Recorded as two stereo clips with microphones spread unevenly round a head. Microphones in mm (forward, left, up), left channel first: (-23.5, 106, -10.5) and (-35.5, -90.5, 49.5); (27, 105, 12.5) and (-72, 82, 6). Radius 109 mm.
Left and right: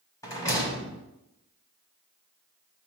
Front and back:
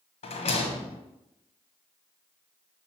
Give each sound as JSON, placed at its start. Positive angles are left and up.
{"t": 0.2, "sound": "a rattle", "azimuth_deg": 5, "distance_m": 0.9}